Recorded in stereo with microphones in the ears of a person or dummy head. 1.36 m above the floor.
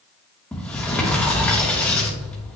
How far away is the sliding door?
About 1.2 m.